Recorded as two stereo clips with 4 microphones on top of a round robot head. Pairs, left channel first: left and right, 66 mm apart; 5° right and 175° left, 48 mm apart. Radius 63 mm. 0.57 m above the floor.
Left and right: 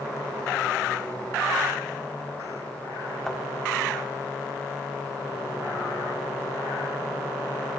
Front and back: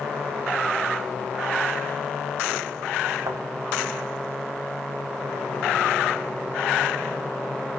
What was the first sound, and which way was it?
A thud, 175° left.